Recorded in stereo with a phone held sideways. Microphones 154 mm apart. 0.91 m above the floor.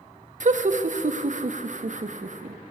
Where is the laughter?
60° right (ahead or behind), 0.6 m.